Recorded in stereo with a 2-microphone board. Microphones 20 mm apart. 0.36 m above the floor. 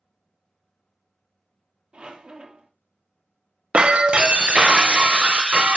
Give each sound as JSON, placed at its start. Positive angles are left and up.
{"t": 1.9, "sound": "a squeak", "side_deg": -60, "distance_m": 1.2}
{"t": 3.7, "sound": "breaking glass", "side_deg": -60, "distance_m": 0.6}